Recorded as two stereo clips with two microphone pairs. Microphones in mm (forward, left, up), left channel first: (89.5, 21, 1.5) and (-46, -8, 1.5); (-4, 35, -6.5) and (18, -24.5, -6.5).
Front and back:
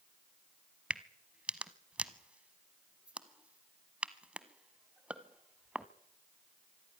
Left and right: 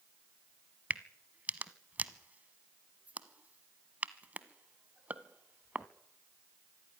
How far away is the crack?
About 1.0 m.